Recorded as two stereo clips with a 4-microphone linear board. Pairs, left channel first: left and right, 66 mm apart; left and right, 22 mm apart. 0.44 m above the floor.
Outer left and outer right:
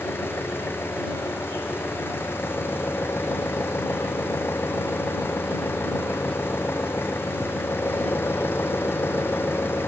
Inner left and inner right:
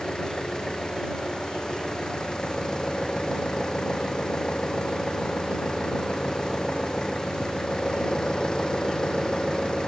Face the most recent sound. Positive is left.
turn(degrees=35)  # may be behind; listen again after turning